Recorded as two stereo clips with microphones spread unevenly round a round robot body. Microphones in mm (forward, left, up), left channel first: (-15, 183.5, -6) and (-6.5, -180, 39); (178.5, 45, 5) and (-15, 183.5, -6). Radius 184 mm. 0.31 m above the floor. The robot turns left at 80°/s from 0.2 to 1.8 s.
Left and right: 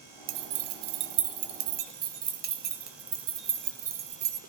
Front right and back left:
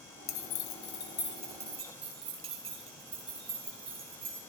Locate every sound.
0.3 s keys jangling: 30° right, 1.0 m; by 4.4 s 155° right, 1.0 m